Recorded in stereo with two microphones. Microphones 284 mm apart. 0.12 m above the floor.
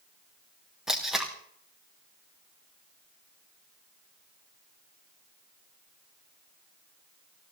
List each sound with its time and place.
0.9 s tape being pulled: centre (ahead or behind), 3.5 m